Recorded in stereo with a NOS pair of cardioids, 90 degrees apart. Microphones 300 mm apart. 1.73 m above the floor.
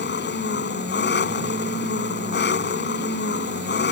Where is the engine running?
35° left.